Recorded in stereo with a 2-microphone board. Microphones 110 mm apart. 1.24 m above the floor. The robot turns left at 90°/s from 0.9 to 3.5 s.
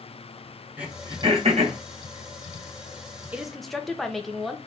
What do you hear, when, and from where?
0.8 s throat clearing: 10° right (ahead or behind), 1.4 m; by 1.8 s 80° right, 1.4 m
3.3 s a woman speaking: 15° right (ahead or behind), 0.7 m; by 4.6 s centre (ahead or behind), 0.7 m